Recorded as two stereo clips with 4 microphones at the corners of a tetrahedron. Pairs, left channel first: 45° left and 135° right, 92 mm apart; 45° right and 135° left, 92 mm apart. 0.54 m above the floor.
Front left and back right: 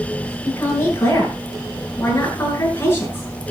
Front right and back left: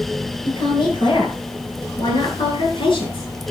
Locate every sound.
0.5 s a woman speaking: 20° right, 8.5 m